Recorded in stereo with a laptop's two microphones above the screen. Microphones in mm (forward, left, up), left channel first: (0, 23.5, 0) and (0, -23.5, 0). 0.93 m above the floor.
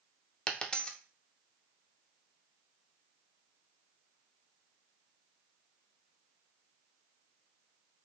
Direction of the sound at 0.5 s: 20° left (ahead or behind).